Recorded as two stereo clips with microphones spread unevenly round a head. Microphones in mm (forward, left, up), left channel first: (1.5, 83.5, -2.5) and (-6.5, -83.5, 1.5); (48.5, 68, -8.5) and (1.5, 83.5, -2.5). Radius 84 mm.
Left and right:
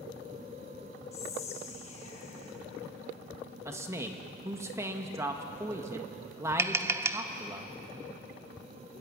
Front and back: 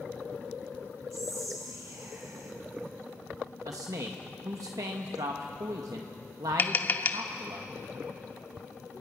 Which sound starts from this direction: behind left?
Whispering, at 1.1 s.